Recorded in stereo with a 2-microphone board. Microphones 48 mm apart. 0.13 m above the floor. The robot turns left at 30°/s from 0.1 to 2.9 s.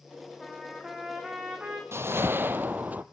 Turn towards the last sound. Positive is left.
turn(degrees=-35)  # may be behind; listen again after turning